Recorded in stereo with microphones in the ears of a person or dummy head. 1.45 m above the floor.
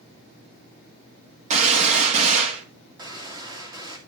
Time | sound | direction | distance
1.5 | a gunshot | 45° right (ahead or behind) | 2 m
3.0 | a gunshot | 20° right (ahead or behind) | 2.5 m